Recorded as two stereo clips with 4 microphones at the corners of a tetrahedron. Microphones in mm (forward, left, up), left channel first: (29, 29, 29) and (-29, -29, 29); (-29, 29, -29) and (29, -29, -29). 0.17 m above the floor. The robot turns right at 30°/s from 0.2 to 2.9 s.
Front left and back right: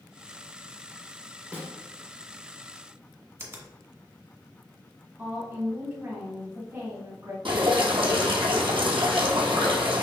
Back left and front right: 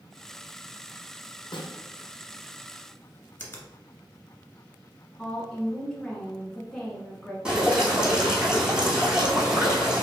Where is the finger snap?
175° right, 1.3 m.